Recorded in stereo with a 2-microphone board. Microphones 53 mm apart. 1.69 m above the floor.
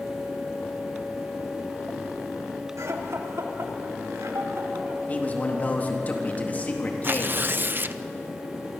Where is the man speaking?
35° left (ahead or behind), 3.5 m.